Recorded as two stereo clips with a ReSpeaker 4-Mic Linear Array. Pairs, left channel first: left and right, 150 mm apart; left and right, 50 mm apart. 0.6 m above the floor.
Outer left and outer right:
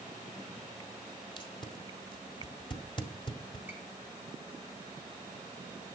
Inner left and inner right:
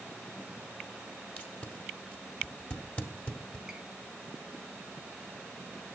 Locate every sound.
1.4 s tape being pulled: 35° left (ahead or behind), 1.7 m
3.7 s a squeak: 15° right (ahead or behind), 3.5 m